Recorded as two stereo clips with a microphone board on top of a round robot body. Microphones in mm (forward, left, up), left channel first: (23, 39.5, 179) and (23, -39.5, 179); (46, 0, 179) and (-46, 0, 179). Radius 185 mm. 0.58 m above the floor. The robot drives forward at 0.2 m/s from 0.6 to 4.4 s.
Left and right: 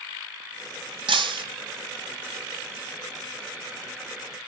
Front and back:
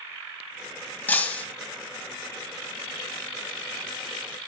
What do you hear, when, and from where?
1.1 s breaking glass: 75° right, 1.5 m